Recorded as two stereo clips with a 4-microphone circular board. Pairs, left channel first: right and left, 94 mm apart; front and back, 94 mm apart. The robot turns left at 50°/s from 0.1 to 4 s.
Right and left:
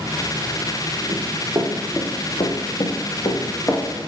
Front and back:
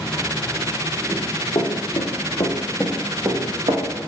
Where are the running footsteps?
55° left, 1.4 m; by 3.8 s 165° right, 1.2 m.